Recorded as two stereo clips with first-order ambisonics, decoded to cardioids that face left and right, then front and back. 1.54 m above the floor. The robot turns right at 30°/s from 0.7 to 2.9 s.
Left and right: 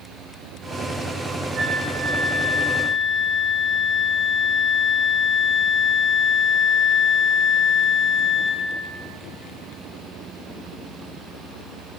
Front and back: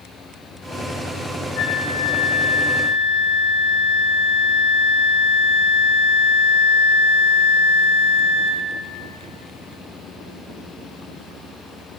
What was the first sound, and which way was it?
A flute, 25° right.